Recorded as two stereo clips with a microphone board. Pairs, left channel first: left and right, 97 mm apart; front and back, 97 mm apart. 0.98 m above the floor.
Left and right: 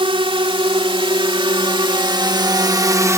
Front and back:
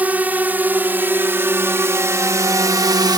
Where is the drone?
110° right; by 3.2 s 145° right.